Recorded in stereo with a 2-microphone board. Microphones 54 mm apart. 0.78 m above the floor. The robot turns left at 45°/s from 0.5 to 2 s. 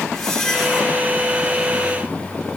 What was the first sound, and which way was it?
A squeak, 5° left (ahead or behind).